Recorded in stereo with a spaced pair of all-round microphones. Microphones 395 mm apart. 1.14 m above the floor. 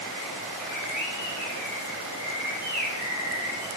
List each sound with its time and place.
0.6 s a bird: 45° left (ahead or behind), 5.5 m